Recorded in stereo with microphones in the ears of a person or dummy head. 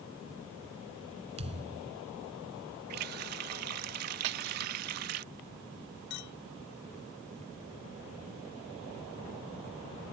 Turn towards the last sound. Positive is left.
turn(degrees=55)  # may be behind; listen again after turning